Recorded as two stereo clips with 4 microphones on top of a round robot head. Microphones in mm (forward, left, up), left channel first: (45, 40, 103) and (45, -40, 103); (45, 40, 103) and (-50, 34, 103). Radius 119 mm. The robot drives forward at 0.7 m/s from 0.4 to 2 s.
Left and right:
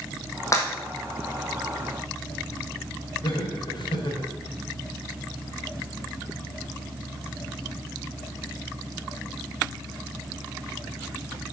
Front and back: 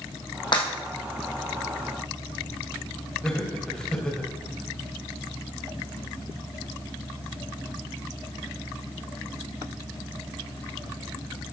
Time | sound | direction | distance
0.5 | breaking glass | 40° left | 2.5 m
3.2 | laughter | 85° left | 2.5 m